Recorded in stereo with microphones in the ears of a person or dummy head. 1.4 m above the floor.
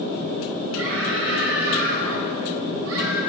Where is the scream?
90° right, 4 m.